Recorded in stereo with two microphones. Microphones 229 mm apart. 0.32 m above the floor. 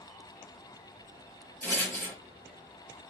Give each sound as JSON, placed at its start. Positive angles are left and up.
{"t": 1.6, "sound": "a rattle", "side_deg": 10, "distance_m": 1.5}